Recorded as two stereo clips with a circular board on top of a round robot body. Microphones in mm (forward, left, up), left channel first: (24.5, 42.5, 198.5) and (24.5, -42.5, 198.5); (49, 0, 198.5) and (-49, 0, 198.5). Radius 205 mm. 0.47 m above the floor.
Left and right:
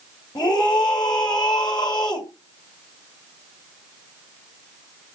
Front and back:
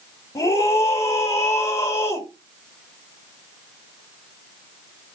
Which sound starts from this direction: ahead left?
A scream, at 0.3 s.